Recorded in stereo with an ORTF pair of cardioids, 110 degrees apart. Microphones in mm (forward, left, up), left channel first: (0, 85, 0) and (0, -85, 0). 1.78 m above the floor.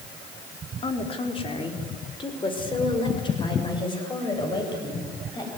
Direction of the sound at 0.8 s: 35° left.